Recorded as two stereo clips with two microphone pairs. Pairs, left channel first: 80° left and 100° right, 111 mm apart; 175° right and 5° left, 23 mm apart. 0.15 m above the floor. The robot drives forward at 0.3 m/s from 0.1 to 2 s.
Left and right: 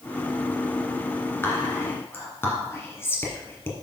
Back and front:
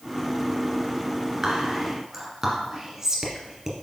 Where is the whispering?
40° left, 1.7 m; by 3.7 s 50° left, 1.7 m.